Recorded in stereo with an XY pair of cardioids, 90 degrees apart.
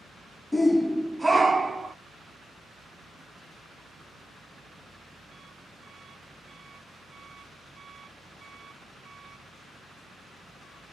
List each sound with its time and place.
0.5 s a shout: 20° left, 0.5 m; by 1.9 s 40° right, 0.8 m